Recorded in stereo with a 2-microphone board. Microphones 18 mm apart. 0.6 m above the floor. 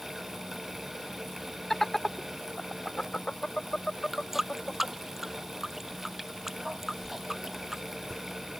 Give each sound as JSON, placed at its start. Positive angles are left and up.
{"t": 1.7, "sound": "laughter", "side_deg": 15}
{"t": 4.1, "sound": "a running tap", "side_deg": -15}
{"t": 7.0, "sound": "a whoosh", "side_deg": 45}